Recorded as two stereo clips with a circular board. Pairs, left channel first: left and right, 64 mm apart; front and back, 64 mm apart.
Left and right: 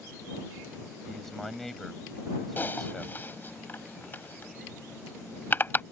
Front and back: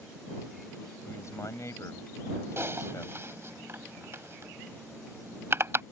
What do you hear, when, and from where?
1.1 s a man speaking: 5° left
2.6 s typing on a keyboard: 140° left